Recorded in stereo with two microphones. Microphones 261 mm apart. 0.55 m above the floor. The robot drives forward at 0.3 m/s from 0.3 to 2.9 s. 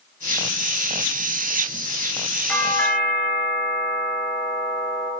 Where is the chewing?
I don't hear chewing.